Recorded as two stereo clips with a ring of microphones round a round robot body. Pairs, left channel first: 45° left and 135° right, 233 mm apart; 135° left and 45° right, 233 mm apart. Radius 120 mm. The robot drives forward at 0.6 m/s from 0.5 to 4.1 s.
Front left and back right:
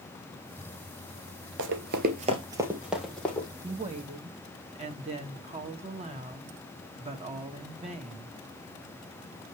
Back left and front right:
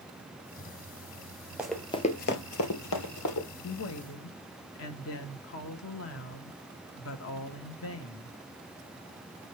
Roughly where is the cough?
I don't hear a cough.